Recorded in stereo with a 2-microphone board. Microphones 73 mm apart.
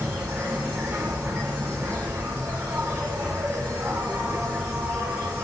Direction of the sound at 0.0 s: 25° right (ahead or behind).